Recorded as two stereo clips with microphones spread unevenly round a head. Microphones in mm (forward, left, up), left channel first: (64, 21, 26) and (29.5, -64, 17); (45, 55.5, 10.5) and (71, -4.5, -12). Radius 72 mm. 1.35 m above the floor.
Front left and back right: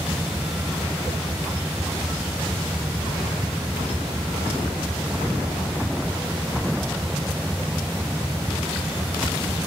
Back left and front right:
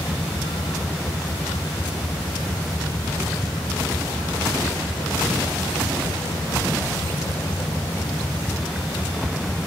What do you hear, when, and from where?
0.0 s a vehicle: 165° left